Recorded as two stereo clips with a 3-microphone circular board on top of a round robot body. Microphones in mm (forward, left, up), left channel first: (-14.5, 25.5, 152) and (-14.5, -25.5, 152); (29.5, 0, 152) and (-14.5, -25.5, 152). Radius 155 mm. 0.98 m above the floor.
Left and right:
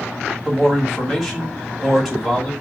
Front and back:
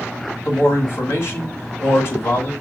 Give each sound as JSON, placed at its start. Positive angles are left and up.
{"t": 0.5, "sound": "a man speaking", "azimuth_deg": -5, "distance_m": 1.8}